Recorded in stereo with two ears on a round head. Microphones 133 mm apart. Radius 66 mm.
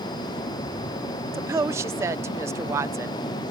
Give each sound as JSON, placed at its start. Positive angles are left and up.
{"t": 1.3, "sound": "a woman speaking", "side_deg": -20}